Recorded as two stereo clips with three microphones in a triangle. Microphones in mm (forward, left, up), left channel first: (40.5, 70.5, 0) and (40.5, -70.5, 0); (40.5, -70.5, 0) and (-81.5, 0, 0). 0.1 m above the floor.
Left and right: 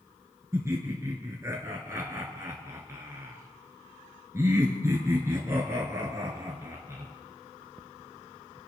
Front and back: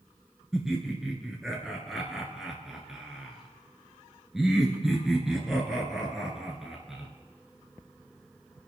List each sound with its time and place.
0.5 s laughter: 125° right, 1.5 m